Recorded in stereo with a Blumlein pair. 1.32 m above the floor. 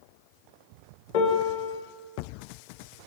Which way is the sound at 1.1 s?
45° left.